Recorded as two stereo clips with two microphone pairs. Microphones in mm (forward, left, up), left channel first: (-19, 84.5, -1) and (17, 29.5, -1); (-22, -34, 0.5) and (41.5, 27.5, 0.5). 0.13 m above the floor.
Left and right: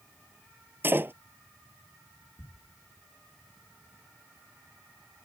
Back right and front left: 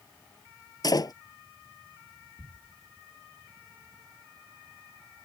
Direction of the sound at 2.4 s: 85° left.